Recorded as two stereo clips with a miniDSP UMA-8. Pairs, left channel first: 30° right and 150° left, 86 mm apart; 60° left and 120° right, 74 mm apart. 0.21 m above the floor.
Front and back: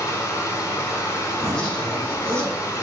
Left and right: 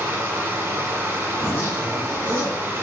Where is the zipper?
40° left, 1.5 m.